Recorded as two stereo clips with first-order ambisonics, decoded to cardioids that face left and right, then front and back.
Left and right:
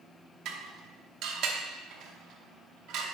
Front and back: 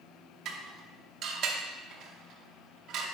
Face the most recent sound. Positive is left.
turn(degrees=-130)